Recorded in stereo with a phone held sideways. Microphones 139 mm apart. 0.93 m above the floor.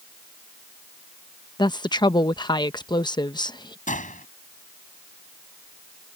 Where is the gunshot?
65° left (ahead or behind).